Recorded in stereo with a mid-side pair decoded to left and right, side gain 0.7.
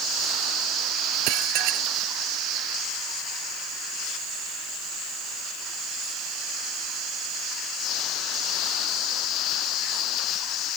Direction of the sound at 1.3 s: 65° right.